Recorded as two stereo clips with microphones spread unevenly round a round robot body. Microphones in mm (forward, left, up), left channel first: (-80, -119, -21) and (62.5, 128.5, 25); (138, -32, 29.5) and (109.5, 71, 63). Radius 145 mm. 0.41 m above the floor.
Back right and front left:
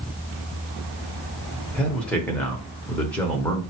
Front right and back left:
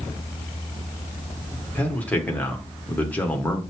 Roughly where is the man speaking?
Ahead right.